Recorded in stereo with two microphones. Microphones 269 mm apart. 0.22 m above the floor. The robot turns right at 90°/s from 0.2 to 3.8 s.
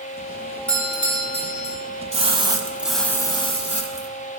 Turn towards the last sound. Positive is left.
turn(degrees=25)  # may be behind; listen again after turning